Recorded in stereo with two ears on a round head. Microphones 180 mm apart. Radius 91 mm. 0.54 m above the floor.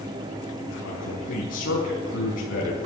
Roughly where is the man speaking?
Left.